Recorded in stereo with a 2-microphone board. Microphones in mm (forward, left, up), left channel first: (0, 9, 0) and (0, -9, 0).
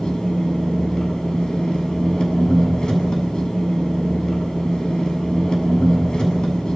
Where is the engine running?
40° left (ahead or behind), 7.5 m.